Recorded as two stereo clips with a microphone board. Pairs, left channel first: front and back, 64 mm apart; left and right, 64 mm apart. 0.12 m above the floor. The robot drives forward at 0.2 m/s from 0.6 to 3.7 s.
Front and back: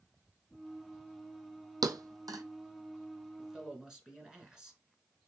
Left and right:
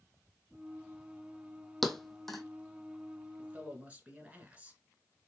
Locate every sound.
1.8 s a thud: 175° left, 0.5 m
3.4 s a man speaking: 110° right, 1.1 m; by 4.8 s 115° right, 1.1 m